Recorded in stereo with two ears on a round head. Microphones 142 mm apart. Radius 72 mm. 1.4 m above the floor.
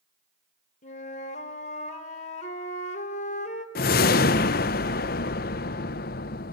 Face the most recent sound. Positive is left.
turn(degrees=65)  # may be behind; listen again after turning